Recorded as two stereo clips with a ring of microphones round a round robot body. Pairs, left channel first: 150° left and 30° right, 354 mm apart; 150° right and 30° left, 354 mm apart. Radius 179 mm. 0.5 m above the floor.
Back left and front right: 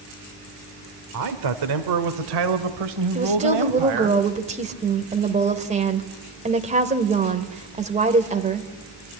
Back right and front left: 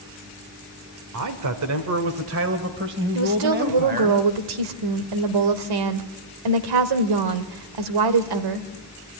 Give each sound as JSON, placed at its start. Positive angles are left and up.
{"t": 1.1, "sound": "a man speaking", "azimuth_deg": 0, "distance_m": 1.5}
{"t": 3.1, "sound": "a woman speaking", "azimuth_deg": 40, "distance_m": 1.7}